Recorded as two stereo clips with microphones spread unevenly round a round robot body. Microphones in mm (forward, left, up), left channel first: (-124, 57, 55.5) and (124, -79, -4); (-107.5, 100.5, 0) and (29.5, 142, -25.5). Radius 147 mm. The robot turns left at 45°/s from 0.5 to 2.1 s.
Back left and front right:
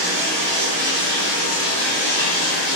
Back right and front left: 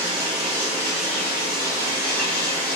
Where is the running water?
80° right, 1.4 m; by 2.8 s 150° right, 1.4 m.